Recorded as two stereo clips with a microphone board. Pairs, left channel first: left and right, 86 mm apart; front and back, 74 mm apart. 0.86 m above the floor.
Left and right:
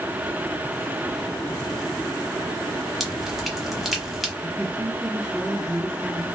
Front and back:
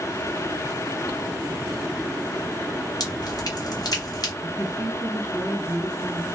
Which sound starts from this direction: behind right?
A man speaking, at 4.4 s.